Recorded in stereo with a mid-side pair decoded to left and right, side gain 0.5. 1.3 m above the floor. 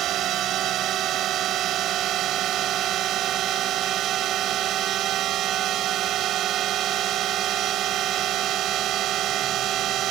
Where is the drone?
65° right.